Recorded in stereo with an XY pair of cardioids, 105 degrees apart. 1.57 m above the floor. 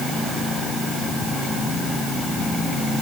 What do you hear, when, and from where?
Only background noise.